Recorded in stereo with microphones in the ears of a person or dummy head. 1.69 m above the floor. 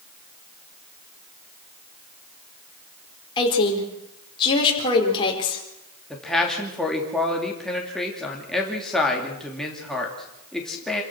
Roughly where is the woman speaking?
Left.